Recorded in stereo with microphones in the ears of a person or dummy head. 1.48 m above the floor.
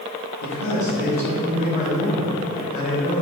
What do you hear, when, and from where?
0.4 s a man speaking: 65° left (ahead or behind), 2 m; by 3.2 s 40° left (ahead or behind), 4 m